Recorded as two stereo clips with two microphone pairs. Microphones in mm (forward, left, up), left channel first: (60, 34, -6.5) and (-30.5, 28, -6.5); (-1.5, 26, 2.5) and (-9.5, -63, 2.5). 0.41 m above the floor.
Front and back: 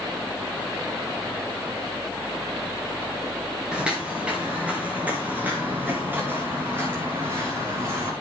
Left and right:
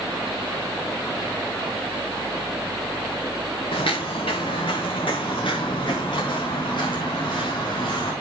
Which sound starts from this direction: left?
Footsteps, at 3.7 s.